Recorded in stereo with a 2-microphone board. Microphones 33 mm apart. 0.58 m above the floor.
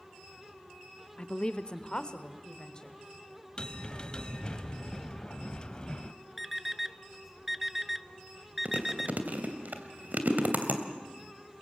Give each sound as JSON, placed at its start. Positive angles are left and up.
{"t": 1.2, "sound": "a woman speaking", "side_deg": 35, "distance_m": 0.9}
{"t": 3.6, "sound": "a bell", "side_deg": 25, "distance_m": 1.0}
{"t": 6.4, "sound": "an alarm clock", "side_deg": -5, "distance_m": 0.5}
{"t": 8.7, "sound": "chewing", "side_deg": -55, "distance_m": 2.0}